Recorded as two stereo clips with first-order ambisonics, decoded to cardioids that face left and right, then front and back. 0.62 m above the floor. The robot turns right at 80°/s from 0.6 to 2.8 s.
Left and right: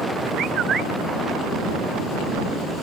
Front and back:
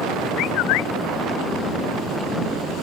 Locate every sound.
0.4 s a bird: 35° right; by 0.9 s 10° right